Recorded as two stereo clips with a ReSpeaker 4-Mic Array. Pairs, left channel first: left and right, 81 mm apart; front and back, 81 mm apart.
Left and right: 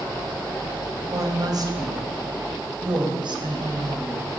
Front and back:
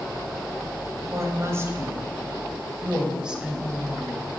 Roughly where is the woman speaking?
Behind right.